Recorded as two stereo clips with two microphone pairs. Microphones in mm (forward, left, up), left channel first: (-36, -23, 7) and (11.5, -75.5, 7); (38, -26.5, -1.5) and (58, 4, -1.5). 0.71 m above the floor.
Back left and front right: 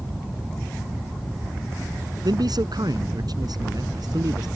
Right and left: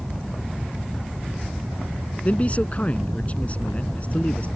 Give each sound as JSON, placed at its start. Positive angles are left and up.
{"t": 2.2, "sound": "a man speaking", "azimuth_deg": -70}